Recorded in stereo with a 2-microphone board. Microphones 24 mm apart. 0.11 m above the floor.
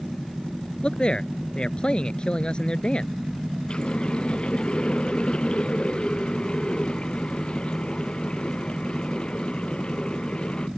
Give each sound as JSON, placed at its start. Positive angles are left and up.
{"t": 0.8, "sound": "a man speaking", "side_deg": 40}
{"t": 3.7, "sound": "a running tap", "side_deg": 40}